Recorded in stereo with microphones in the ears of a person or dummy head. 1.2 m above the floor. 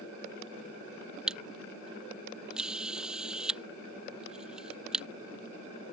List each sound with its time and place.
1.3 s a camera shutter: 5° right (ahead or behind)